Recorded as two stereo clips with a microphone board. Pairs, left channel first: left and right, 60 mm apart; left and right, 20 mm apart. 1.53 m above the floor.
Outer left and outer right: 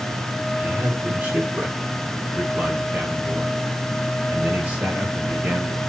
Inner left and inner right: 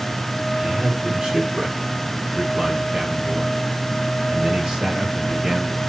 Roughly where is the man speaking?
Right.